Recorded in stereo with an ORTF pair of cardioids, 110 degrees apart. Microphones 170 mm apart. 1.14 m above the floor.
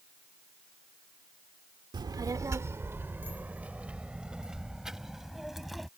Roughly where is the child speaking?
Ahead right.